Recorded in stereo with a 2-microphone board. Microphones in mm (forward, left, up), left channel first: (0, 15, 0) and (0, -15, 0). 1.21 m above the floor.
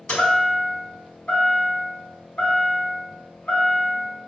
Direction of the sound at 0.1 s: 45° left (ahead or behind).